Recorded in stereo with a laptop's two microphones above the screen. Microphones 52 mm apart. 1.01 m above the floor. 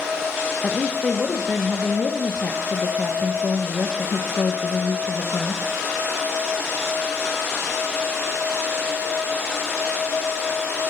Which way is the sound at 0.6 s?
25° left (ahead or behind).